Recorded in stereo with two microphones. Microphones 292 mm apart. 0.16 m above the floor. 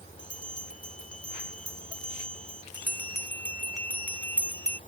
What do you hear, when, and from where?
0.2 s a bell: 55° left (ahead or behind)
2.7 s a bell: 75° left (ahead or behind)